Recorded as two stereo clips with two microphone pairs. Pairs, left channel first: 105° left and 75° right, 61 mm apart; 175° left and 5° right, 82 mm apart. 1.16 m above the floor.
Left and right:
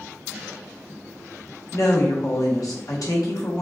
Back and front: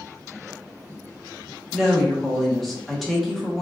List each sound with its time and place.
1.7 s a woman speaking: 85° left, 1.1 m